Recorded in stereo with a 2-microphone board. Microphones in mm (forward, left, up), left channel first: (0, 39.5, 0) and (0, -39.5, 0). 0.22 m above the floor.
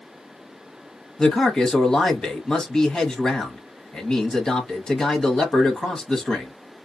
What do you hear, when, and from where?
1.2 s a man speaking: 10° left (ahead or behind), 1.1 m